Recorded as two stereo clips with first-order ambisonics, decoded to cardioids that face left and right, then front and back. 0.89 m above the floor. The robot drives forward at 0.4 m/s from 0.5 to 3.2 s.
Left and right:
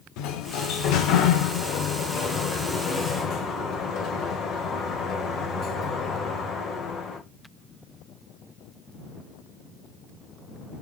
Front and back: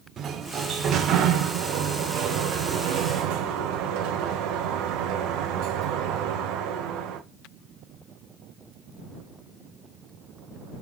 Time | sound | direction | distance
0.2 | a sliding door | 115° left | 1.1 m